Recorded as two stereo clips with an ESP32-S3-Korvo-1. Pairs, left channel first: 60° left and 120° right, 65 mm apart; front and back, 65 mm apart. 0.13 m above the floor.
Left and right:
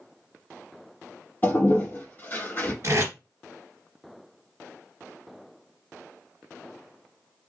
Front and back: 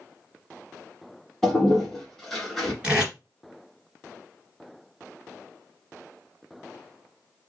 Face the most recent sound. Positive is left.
turn(degrees=-120)